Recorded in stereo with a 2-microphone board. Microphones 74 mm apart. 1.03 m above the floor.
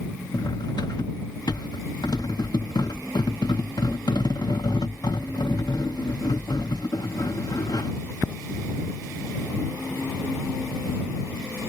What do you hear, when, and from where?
0.3 s cutlery clinking: 65° left (ahead or behind)